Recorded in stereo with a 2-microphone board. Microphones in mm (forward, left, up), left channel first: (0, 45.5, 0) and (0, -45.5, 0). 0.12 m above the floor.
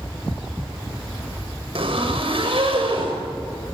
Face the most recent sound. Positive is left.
turn(degrees=-60)  # may be behind; listen again after turning